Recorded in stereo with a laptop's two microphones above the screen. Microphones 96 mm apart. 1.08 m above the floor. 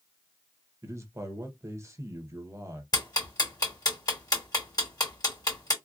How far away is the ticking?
About 2 m.